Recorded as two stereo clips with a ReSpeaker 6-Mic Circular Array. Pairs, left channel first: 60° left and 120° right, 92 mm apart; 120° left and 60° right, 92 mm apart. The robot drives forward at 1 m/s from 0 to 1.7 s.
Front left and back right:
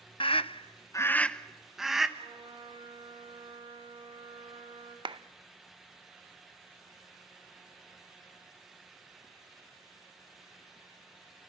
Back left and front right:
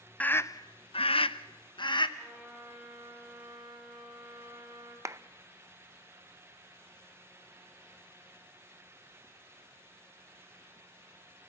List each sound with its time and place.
0.2 s a scream: 45° left, 0.7 m; by 2.1 s 150° left, 1.1 m
2.2 s a trumpet: 140° right, 5.5 m
5.0 s a clap: 115° right, 0.5 m